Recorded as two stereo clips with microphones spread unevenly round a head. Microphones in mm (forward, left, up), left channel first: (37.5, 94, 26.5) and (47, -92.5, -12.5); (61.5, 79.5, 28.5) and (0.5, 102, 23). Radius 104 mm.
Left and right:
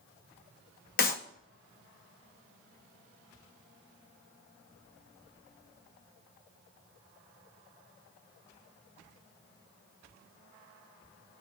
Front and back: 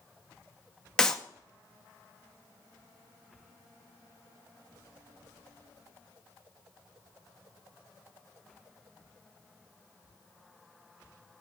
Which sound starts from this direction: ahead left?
A clap, at 1.0 s.